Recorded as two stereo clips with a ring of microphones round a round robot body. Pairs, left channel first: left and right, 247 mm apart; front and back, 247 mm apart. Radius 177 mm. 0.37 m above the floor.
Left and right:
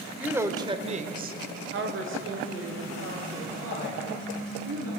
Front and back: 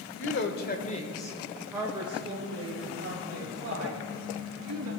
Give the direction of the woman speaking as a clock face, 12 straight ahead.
12 o'clock.